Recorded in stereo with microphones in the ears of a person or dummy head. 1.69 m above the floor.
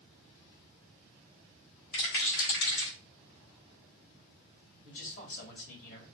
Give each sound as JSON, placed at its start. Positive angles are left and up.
{"t": 1.9, "sound": "a rattle", "side_deg": 80, "distance_m": 3.0}
{"t": 4.8, "sound": "a man speaking", "side_deg": 65, "distance_m": 2.5}